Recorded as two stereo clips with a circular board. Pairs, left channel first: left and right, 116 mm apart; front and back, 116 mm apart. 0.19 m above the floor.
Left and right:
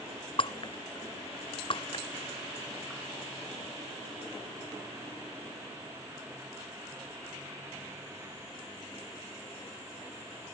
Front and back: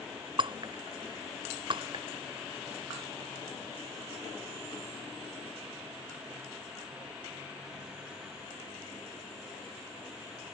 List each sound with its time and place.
0.4 s breaking glass: 135° left